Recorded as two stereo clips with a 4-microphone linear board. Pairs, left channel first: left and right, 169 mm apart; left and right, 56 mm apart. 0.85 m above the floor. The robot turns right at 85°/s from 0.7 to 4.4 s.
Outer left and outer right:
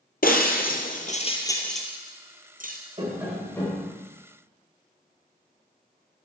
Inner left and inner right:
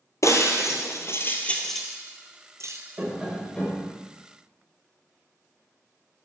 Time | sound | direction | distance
0.2 | breaking glass | 60° left (ahead or behind) | 1.6 m
3.0 | tapping | 35° right | 3.5 m